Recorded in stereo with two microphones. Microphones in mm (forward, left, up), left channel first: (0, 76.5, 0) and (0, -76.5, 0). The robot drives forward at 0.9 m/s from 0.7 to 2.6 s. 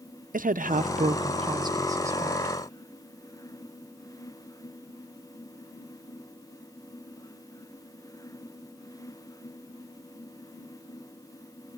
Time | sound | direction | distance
0.3 | a woman speaking | 65° right (ahead or behind) | 0.6 m